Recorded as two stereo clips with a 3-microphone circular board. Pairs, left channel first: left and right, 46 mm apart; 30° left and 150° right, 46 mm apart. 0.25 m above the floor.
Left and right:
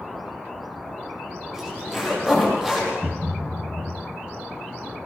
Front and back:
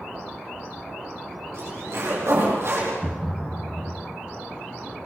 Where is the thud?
65° right, 0.6 m.